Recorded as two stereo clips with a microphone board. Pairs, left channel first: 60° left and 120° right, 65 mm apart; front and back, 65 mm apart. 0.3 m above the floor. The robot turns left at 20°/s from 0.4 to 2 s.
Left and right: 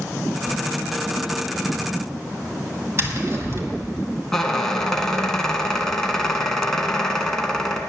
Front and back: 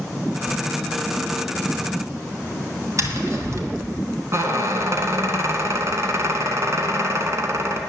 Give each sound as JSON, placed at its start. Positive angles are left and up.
{"t": 3.0, "sound": "tapping", "azimuth_deg": -160, "distance_m": 2.0}
{"t": 4.3, "sound": "a squeak", "azimuth_deg": 140, "distance_m": 1.8}